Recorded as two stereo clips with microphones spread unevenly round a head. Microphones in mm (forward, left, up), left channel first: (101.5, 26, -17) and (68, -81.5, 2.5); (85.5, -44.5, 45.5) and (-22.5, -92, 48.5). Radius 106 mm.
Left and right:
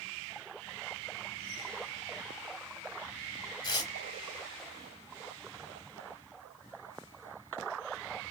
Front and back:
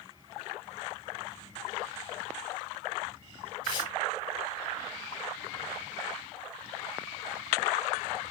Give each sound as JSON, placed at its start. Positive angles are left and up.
{"t": 3.6, "sound": "tearing paper", "azimuth_deg": 40, "distance_m": 0.9}